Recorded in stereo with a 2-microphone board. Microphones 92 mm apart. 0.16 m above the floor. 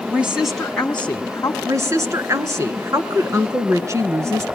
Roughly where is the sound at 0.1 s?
Centre.